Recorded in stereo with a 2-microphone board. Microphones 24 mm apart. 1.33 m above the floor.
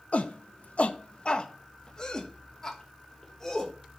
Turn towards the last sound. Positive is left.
turn(degrees=20)  # may be behind; listen again after turning